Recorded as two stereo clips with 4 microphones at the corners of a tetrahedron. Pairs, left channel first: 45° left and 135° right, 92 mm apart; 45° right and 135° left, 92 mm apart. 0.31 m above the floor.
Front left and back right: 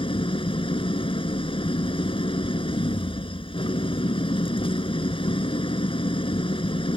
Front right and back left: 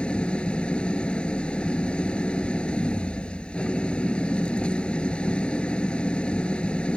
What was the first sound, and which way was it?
An engine running, 35° left.